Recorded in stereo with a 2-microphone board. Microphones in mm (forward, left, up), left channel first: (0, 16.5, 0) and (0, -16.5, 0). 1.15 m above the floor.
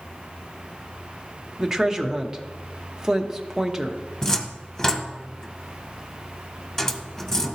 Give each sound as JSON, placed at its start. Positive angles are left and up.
{"t": 1.6, "sound": "a woman speaking", "side_deg": -20, "distance_m": 0.9}
{"t": 4.2, "sound": "a cupboard door", "side_deg": 15, "distance_m": 0.7}